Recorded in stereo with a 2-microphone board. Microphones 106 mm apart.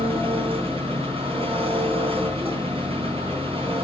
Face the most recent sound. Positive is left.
turn(degrees=-60)  # may be behind; listen again after turning